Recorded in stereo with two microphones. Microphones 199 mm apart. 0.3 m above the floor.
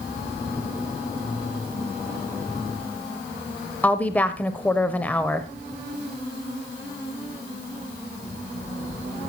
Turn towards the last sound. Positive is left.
turn(degrees=10)  # may be behind; listen again after turning